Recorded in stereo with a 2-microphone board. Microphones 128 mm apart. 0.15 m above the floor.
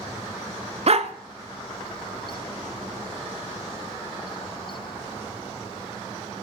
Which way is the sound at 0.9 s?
55° right (ahead or behind).